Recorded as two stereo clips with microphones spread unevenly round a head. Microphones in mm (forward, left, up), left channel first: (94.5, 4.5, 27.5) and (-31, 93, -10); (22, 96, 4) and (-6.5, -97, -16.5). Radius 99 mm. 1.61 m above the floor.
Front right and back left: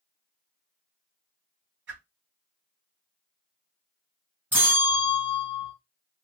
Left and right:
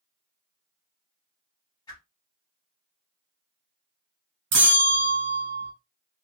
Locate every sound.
1.9 s a whoosh: 150° left, 1.4 m
4.5 s a bell: 135° right, 1.3 m